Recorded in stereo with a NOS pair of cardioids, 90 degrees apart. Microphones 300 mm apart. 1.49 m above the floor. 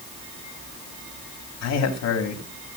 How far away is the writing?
No writing in this recording.